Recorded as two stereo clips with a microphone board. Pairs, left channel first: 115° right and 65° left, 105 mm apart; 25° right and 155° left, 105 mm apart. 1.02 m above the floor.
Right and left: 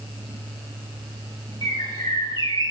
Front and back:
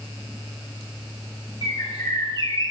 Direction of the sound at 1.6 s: 65° right.